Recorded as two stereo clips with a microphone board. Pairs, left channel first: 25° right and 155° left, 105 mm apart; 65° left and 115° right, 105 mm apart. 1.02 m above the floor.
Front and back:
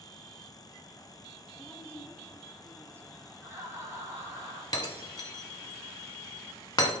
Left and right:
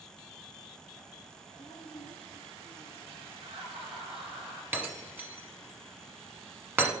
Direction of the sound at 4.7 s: 45° right.